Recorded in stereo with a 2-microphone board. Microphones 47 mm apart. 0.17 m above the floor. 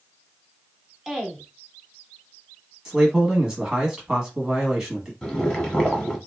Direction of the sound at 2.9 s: 15° right (ahead or behind).